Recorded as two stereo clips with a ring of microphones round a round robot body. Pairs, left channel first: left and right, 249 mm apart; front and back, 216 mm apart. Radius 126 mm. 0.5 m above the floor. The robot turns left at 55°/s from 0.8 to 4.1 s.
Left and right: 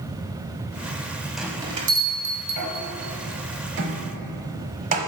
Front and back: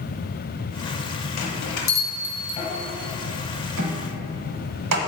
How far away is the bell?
About 1.0 m.